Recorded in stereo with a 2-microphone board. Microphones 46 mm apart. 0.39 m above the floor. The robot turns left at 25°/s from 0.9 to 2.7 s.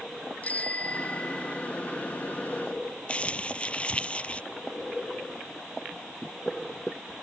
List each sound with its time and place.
0.4 s a bicycle bell: 35° left (ahead or behind); by 1.7 s 15° left (ahead or behind)
3.1 s crumpling: 25° left (ahead or behind)